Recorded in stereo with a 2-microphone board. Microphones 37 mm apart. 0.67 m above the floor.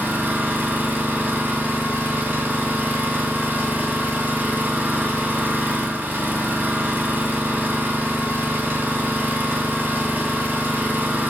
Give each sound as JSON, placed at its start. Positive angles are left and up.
{"t": 0.0, "sound": "an engine running", "side_deg": -60, "distance_m": 1.6}